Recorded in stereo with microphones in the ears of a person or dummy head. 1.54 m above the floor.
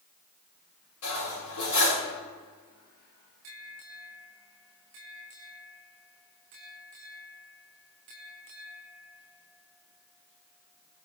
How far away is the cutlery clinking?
About 3 m.